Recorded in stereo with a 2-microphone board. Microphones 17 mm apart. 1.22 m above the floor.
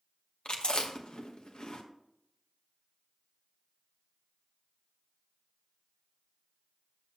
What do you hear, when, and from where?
0.5 s chewing: 60° left (ahead or behind), 1.2 m